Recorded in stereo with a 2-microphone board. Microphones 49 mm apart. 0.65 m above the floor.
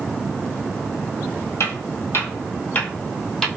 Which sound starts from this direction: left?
Footsteps, at 1.6 s.